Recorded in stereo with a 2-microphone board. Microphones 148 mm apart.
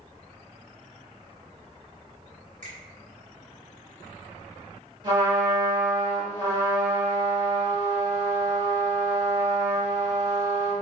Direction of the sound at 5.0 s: 30° right (ahead or behind).